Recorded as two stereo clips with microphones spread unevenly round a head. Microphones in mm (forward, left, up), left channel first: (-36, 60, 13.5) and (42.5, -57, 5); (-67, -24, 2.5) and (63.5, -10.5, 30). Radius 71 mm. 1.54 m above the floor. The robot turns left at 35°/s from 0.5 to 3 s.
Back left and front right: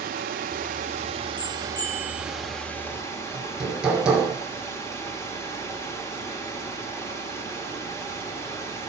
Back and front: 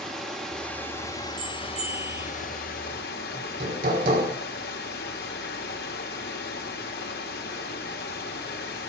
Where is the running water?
80° right, 1.9 m; by 8.9 s 170° right, 1.9 m.